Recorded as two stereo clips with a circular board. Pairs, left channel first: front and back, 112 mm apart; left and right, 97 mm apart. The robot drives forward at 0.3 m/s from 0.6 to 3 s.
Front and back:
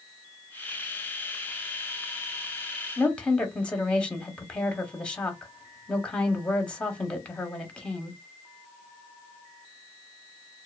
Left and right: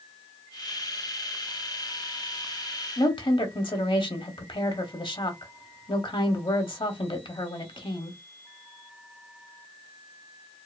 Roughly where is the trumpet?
No trumpet in this recording.